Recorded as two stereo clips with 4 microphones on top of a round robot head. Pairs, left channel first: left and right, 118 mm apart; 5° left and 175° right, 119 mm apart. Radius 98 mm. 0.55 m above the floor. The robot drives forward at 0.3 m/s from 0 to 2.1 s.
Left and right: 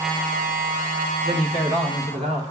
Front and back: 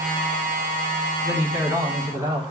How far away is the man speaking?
About 1.7 m.